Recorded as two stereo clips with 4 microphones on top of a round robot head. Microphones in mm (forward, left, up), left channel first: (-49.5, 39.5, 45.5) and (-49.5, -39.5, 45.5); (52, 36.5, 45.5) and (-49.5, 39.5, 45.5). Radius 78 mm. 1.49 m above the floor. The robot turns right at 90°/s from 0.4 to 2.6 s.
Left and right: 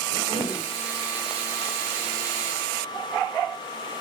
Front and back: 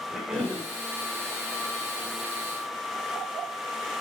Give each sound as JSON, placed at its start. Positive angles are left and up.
{"t": 0.1, "sound": "a cough", "azimuth_deg": 95, "distance_m": 6.5}